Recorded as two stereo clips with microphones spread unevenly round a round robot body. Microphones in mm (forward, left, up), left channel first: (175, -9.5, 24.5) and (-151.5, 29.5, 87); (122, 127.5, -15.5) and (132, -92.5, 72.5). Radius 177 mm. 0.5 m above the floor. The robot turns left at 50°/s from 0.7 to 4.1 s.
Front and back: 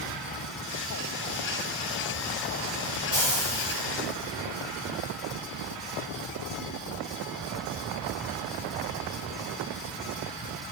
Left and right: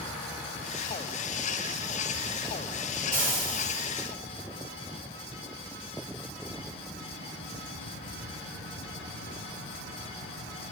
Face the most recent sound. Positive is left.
turn(degrees=-145)